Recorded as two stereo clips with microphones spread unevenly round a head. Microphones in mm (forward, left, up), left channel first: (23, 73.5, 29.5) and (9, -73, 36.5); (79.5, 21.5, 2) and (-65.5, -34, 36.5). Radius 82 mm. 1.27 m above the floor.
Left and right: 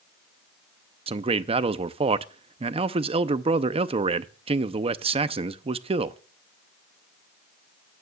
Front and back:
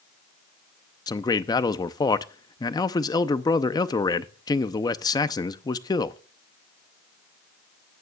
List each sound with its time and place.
1.1 s a man speaking: 40° right, 0.6 m